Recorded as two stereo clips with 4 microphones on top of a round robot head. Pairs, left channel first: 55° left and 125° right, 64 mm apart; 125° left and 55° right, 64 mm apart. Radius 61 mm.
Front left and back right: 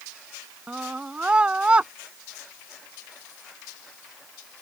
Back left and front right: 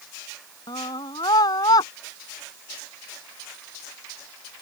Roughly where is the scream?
Behind left.